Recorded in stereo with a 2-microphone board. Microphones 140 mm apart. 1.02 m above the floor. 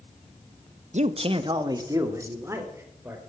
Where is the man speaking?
60° right (ahead or behind), 0.8 m; by 3.2 s 15° right (ahead or behind), 4 m.